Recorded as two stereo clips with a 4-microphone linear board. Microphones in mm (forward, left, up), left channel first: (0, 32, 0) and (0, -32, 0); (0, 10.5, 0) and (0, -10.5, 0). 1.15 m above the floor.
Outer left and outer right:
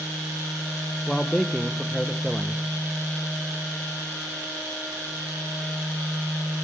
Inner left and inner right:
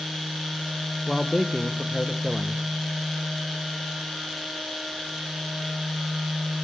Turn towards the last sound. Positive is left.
turn(degrees=10)  # may be behind; listen again after turning